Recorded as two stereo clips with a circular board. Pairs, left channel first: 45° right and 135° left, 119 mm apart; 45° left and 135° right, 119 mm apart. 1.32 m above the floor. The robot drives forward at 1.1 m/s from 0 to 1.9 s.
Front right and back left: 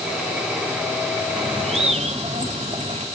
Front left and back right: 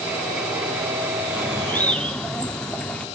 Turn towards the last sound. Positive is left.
turn(degrees=125)